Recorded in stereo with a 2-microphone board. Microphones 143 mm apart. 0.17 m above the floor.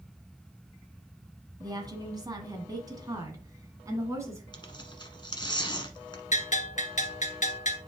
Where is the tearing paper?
35° left (ahead or behind), 1.2 m.